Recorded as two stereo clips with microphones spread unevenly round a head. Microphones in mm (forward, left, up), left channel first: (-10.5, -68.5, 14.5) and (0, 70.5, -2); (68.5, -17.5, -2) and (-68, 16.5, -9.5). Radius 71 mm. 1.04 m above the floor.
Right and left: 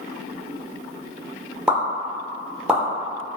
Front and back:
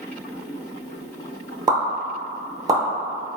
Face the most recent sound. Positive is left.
turn(degrees=145)